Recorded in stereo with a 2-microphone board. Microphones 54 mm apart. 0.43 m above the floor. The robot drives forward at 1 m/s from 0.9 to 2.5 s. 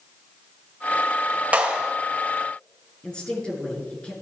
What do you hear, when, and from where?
1.5 s a clap: 25° right (ahead or behind), 1.6 m; by 1.9 s 20° right (ahead or behind), 1.9 m
3.0 s a woman speaking: 15° left (ahead or behind), 5.5 m